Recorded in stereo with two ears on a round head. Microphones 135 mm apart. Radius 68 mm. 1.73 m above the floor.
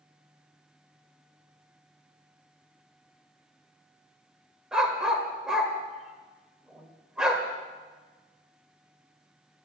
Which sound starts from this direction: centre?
A dog barking, at 4.7 s.